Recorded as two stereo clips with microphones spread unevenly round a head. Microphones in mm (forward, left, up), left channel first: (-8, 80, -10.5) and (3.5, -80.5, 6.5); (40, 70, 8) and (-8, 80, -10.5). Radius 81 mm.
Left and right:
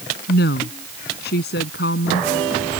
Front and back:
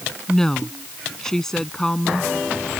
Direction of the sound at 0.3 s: 65° left.